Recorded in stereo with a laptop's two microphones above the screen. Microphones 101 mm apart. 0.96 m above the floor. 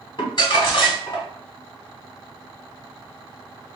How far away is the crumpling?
About 1.2 m.